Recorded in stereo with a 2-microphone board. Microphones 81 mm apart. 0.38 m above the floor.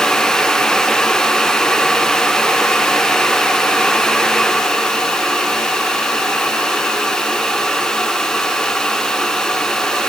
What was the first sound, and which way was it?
Only background noise.